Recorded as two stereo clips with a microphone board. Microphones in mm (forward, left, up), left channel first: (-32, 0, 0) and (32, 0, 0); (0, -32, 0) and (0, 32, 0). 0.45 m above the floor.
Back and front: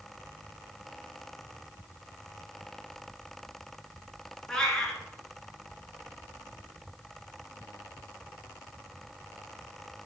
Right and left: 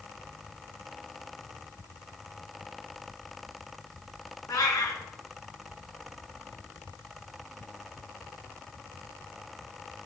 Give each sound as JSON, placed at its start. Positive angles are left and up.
{"t": 4.5, "sound": "a cat meowing", "azimuth_deg": -100, "distance_m": 2.5}